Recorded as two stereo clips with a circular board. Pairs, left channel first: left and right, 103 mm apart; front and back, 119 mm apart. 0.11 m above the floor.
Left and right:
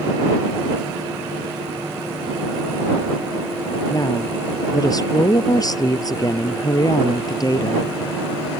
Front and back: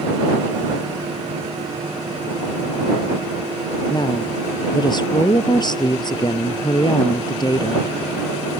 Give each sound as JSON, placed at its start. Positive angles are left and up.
{"t": 3.9, "sound": "a woman speaking", "azimuth_deg": 45}